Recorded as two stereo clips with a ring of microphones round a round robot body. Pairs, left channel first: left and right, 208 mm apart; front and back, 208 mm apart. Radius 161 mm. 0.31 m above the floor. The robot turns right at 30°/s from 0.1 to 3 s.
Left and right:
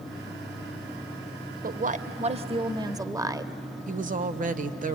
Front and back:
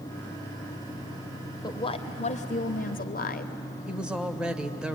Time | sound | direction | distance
1.6 | a woman speaking | 65° right | 1.2 m
3.9 | a woman speaking | 95° right | 1.0 m